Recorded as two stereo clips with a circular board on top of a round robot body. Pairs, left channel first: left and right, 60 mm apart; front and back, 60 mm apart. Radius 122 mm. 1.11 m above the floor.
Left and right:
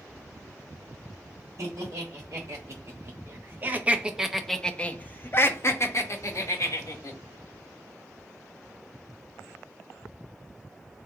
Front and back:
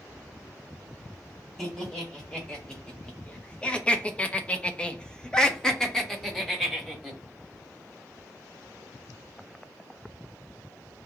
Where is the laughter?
75° right, 1.6 m; by 7.2 s 85° left, 1.6 m.